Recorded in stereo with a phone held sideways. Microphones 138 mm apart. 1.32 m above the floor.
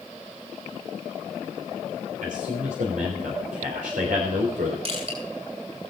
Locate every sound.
2.2 s a man speaking: 80° right, 3.5 m
4.8 s crushing: 50° right (ahead or behind), 6.5 m